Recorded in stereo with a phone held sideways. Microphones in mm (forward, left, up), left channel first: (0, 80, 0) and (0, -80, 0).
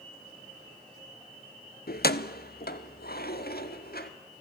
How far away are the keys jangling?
About 0.6 m.